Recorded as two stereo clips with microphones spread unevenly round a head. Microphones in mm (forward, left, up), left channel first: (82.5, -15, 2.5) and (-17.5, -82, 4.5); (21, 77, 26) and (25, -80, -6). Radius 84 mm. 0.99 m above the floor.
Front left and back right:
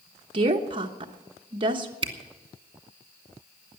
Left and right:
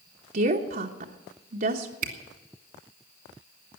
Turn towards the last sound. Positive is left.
turn(degrees=-105)